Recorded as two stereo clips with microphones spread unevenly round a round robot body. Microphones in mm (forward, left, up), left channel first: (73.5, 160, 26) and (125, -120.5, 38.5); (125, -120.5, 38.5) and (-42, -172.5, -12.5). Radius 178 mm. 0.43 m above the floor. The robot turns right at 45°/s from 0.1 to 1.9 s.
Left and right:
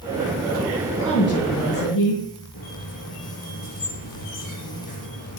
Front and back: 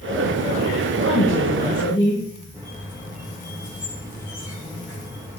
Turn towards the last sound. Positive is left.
turn(degrees=115)